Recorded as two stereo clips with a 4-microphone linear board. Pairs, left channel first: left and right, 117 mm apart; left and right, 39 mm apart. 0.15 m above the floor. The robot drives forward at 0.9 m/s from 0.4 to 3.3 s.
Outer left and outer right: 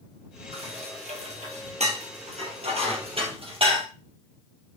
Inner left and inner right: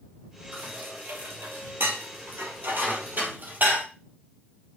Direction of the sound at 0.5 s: 60° right (ahead or behind).